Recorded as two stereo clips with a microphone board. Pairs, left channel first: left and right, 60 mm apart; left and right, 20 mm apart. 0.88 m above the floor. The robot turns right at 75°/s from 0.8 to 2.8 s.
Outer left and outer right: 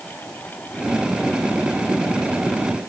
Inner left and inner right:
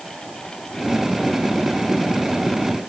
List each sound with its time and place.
Only background noise.